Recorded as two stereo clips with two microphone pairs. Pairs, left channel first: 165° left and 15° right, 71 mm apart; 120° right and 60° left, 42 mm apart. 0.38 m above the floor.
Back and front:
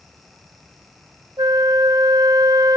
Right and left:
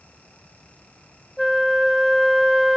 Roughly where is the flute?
Ahead right.